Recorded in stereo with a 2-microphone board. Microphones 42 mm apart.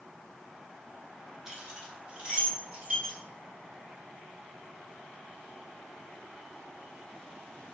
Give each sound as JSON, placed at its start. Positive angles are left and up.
{"t": 1.5, "sound": "keys jangling", "side_deg": -15, "distance_m": 1.2}